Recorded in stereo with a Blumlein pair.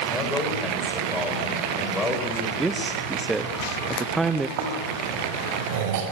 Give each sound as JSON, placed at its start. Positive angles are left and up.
{"t": 0.1, "sound": "a man speaking", "azimuth_deg": 10, "distance_m": 7.0}
{"t": 2.6, "sound": "a man speaking", "azimuth_deg": -10, "distance_m": 1.2}
{"t": 4.6, "sound": "snoring", "azimuth_deg": -50, "distance_m": 6.0}